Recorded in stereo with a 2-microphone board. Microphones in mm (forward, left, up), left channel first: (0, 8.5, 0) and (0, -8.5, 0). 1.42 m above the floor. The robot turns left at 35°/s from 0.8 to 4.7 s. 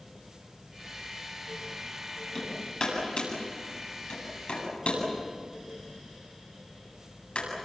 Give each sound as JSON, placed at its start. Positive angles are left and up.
{"t": 2.4, "sound": "hammering", "side_deg": 35, "distance_m": 8.5}